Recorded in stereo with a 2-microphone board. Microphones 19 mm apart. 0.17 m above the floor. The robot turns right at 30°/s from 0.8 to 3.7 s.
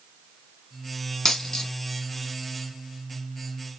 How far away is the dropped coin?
About 0.8 m.